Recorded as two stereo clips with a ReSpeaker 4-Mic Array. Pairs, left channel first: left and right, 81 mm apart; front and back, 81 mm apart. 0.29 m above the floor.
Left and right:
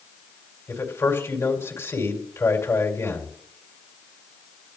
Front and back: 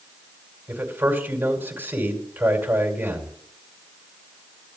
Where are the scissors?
No scissors in this recording.